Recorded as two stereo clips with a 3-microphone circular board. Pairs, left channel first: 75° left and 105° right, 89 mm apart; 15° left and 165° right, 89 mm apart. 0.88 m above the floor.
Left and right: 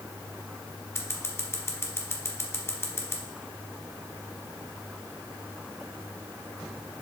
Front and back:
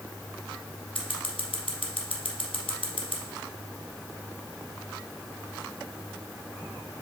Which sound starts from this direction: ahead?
Scissors, at 0.9 s.